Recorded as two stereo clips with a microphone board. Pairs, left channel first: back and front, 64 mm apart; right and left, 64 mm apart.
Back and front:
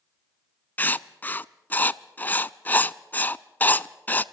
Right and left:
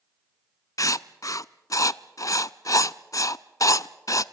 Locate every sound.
0.8 s writing: 120° right, 0.5 m